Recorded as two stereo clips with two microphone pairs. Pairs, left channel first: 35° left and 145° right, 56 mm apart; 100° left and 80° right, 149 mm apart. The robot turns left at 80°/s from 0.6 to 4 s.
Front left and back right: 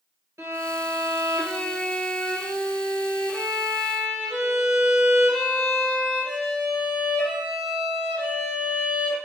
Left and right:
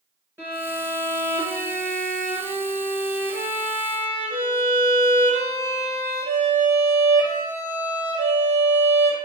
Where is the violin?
155° right, 1.8 m; by 9.2 s 65° right, 1.8 m.